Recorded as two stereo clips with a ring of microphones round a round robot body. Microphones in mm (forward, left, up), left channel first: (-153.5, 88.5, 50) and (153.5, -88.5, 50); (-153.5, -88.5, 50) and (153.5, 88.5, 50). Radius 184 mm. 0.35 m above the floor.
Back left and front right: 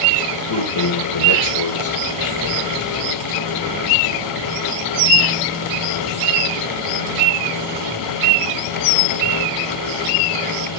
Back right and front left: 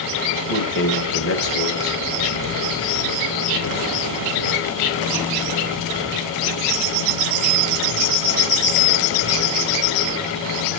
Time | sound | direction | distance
0.3 | a man speaking | 165° left | 2 m